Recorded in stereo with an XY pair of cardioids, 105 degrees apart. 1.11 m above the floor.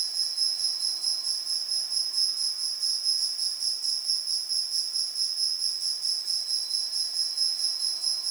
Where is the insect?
50° right, 3 m.